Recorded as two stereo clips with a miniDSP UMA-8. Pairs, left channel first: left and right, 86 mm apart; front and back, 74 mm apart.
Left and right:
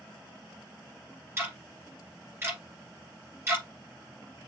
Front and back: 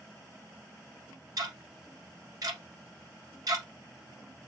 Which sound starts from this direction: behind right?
Ticking, at 1.4 s.